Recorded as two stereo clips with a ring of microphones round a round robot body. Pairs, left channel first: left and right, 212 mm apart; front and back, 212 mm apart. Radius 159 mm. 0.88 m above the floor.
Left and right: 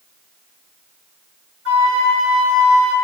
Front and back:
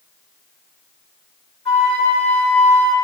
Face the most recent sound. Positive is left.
turn(degrees=-120)